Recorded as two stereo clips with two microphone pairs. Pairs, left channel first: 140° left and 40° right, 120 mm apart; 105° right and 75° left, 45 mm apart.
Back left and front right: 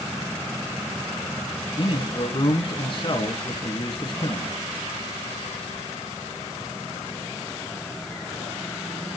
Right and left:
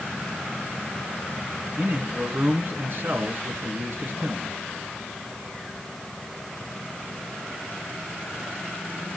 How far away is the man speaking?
About 4 m.